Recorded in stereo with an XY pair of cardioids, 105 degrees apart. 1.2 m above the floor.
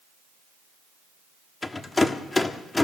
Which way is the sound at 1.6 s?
25° left.